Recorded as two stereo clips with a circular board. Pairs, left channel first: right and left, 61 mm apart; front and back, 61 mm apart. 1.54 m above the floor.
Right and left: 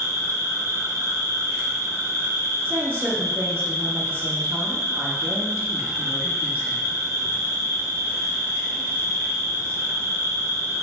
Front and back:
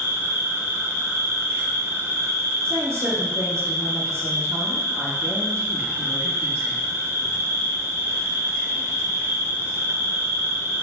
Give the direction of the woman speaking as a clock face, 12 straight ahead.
7 o'clock.